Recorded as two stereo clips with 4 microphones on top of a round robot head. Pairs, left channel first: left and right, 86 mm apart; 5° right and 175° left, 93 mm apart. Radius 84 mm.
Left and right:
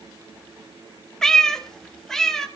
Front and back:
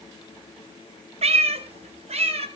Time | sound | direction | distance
1.2 | a cat meowing | 175° left | 1.3 m